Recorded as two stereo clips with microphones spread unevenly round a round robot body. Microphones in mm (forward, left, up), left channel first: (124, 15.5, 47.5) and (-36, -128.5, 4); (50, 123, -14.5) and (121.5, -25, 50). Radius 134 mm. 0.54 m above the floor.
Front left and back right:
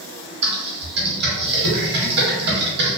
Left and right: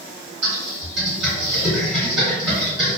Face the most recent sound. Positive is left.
turn(degrees=-100)